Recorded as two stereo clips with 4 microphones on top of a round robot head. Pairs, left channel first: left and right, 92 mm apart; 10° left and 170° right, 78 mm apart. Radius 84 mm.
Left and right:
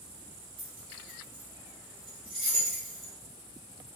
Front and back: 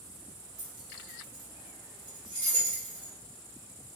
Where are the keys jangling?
130° right, 1.8 m.